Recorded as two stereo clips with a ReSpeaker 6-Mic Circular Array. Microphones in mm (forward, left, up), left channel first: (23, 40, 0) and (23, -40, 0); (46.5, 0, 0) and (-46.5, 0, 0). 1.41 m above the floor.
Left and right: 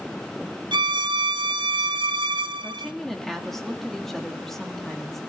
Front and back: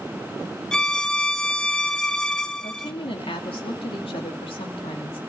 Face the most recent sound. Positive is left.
turn(degrees=5)